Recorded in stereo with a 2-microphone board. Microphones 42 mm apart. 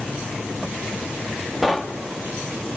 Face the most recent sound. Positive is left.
turn(degrees=-5)  # may be behind; listen again after turning